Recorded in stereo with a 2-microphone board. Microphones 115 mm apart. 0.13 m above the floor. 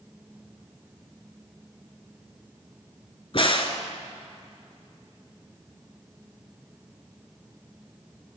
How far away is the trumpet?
I don't hear a trumpet.